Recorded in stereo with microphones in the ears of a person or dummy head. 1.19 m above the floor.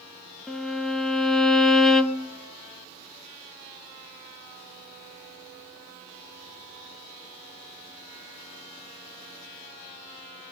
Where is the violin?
5° left (ahead or behind), 0.7 m.